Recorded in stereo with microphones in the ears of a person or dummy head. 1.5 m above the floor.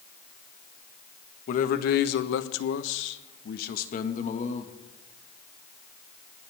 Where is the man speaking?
55° left (ahead or behind), 1.5 m; by 4.8 s 35° left (ahead or behind), 2 m.